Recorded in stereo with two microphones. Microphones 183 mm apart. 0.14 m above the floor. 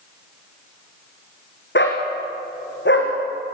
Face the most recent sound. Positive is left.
turn(degrees=85)